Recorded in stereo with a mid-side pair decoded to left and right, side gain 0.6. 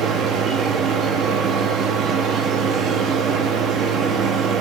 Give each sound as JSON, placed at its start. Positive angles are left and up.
{"t": 0.0, "sound": "a machine running", "azimuth_deg": -55, "distance_m": 1.1}